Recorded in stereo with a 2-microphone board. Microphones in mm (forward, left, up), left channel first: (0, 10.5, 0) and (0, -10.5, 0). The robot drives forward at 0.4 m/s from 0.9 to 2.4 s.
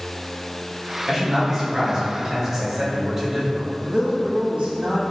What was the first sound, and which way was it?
A man speaking, 20° right (ahead or behind).